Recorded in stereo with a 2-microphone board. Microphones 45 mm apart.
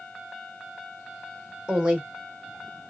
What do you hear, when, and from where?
1.7 s a woman speaking: 25° right (ahead or behind), 1.4 m